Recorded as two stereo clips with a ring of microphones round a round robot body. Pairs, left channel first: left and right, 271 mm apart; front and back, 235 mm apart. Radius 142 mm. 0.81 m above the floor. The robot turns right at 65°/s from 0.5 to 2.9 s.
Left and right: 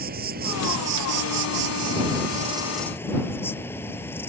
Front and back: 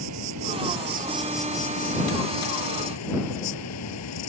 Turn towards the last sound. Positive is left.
turn(degrees=10)